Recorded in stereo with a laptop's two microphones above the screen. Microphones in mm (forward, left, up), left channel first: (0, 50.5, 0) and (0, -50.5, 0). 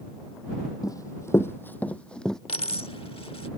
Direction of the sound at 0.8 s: 40° left (ahead or behind).